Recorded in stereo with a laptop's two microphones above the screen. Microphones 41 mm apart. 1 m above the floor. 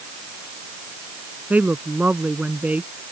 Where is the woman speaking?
40° right (ahead or behind).